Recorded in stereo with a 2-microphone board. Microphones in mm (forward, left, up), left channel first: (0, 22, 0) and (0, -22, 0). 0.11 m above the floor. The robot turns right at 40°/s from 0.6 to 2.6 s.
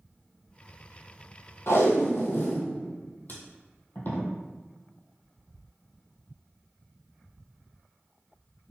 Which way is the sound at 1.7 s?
75° left (ahead or behind).